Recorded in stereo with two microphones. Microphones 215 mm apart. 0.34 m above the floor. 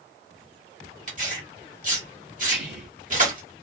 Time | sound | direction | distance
1.1 | tearing paper | 35° right (ahead or behind) | 1.3 m
2.5 | whispering | 10° right (ahead or behind) | 0.9 m